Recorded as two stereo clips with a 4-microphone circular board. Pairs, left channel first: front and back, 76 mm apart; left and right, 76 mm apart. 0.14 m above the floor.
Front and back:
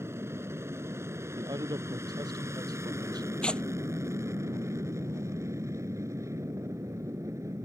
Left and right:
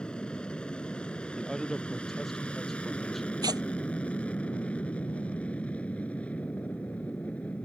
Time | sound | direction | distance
0.0 | an aircraft | 160° left | ?
1.4 | a man speaking | 175° left | ?
3.4 | tearing paper | 75° right | ?